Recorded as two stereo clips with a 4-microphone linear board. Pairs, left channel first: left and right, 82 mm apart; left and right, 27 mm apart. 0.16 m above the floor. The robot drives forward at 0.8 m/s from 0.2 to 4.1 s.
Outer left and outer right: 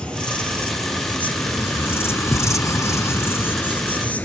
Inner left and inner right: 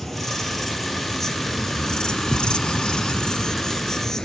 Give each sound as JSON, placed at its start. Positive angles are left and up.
{"t": 0.0, "sound": "an insect", "side_deg": 10, "distance_m": 2.0}